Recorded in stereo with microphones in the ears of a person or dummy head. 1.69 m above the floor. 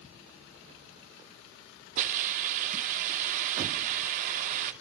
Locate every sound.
2.0 s a hiss: 50° right (ahead or behind), 2 m